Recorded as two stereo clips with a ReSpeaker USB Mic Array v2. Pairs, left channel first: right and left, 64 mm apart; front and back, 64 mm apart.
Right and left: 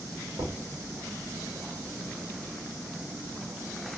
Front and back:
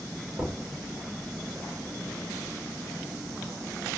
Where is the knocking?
120° left, 2.5 m.